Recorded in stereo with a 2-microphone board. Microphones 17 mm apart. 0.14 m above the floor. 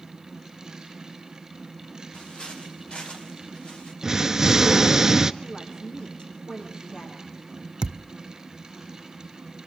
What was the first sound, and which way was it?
Footsteps, 65° left (ahead or behind).